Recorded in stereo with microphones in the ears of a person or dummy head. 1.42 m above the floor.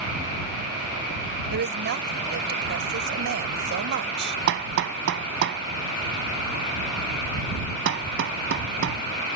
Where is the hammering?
60° right (ahead or behind).